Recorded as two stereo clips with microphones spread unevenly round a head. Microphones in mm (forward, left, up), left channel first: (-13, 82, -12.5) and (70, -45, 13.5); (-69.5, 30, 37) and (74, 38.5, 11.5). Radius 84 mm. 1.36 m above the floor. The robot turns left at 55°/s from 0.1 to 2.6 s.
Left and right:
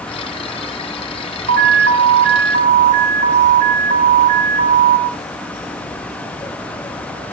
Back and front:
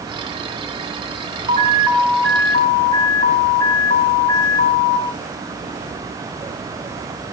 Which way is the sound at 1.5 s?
55° right.